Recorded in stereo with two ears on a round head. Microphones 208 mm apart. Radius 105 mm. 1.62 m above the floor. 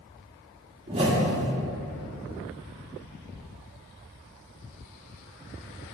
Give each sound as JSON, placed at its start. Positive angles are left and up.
{"t": 0.9, "sound": "a whoosh", "side_deg": -25, "distance_m": 1.3}